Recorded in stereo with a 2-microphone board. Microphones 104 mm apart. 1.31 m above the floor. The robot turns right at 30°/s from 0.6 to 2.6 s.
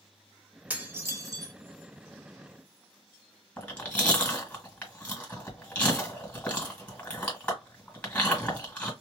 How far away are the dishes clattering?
About 1.3 m.